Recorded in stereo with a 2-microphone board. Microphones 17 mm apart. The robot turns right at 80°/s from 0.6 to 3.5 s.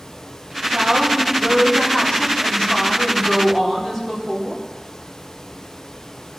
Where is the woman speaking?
30° right, 3.5 m; by 4.6 s 165° right, 3.5 m.